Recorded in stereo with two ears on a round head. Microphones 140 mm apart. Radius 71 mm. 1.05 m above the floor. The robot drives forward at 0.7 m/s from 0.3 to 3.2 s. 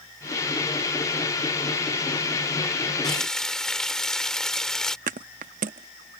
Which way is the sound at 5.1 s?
55° right (ahead or behind).